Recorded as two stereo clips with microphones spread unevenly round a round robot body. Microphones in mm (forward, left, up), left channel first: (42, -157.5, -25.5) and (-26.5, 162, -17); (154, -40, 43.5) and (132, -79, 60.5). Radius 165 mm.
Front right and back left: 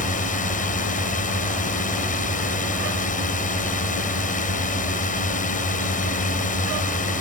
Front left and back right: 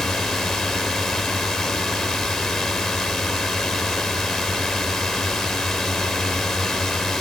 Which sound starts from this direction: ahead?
A drone, at 0.0 s.